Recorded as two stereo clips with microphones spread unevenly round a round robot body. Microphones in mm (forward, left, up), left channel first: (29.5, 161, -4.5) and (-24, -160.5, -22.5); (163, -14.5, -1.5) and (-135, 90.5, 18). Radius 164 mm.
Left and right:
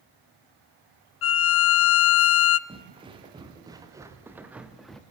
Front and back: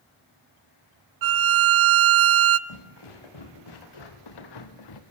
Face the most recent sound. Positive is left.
turn(degrees=-5)